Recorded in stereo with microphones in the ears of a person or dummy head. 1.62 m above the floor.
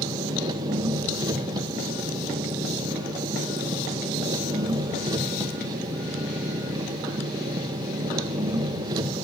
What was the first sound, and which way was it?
An engine running, 25° right (ahead or behind).